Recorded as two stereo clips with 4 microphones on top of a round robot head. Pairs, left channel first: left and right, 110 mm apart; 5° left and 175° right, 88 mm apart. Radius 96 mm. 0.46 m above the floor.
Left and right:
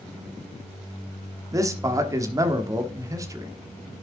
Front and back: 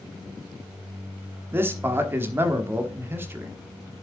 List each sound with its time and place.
1.5 s a man speaking: 125° right, 1.3 m